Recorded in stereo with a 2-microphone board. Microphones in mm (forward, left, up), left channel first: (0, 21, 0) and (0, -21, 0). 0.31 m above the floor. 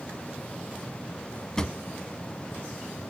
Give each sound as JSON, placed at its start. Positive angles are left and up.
{"t": 1.6, "sound": "a drawer", "side_deg": 15, "distance_m": 1.0}